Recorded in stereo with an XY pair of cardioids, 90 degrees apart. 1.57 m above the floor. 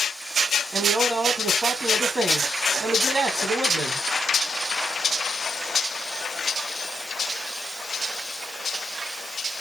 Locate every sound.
0.7 s a man speaking: 50° right, 2.5 m